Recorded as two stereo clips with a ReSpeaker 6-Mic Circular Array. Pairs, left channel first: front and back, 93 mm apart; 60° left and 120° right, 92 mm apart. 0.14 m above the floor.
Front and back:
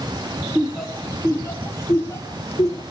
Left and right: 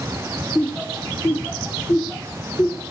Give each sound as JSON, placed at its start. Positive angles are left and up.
{"t": 0.6, "sound": "laughter", "azimuth_deg": 105, "distance_m": 1.5}